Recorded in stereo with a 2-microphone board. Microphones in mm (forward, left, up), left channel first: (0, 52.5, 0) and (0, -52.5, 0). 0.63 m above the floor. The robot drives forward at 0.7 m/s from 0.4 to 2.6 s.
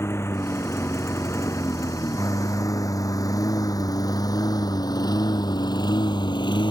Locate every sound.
0.0 s a lawn mower: 20° left (ahead or behind); by 6.7 s 45° left (ahead or behind)